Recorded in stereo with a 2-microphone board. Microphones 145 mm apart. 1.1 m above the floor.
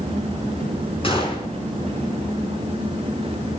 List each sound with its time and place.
1.0 s a gunshot: 40° left (ahead or behind), 4.5 m